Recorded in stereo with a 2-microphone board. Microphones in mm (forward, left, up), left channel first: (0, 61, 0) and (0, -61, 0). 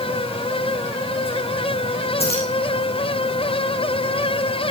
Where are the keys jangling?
55° left (ahead or behind), 5 m.